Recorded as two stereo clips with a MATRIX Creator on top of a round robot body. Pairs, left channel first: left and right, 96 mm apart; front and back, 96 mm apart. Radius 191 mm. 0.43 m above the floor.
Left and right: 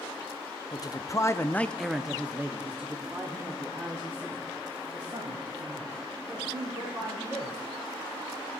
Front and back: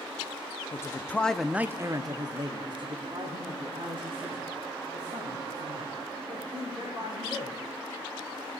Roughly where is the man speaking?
Ahead left.